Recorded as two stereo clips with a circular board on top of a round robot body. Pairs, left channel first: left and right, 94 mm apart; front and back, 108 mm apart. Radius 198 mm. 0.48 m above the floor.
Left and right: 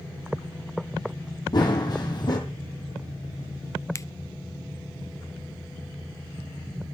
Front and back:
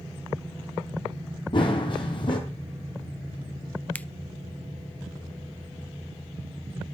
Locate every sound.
1.5 s running footsteps: 45° left, 1.4 m
4.0 s a finger snap: 65° left, 0.6 m